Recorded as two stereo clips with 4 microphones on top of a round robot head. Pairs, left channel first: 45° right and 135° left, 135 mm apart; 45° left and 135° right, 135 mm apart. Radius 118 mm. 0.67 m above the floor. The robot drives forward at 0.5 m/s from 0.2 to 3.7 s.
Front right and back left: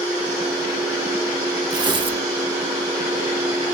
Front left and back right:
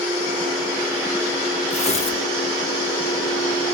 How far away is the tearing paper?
About 1.7 m.